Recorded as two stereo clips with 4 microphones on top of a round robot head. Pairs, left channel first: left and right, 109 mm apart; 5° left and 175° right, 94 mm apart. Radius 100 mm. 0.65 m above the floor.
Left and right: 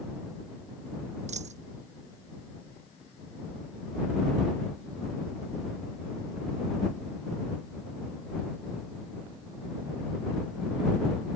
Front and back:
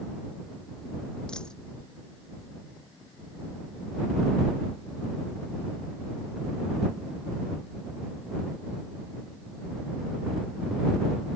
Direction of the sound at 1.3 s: 80° right.